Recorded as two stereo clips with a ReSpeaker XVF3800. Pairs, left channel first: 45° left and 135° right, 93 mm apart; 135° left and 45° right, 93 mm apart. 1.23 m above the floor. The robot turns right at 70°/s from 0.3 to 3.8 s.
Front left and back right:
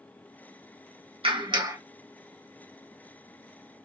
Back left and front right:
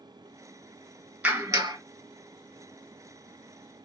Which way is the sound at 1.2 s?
120° right.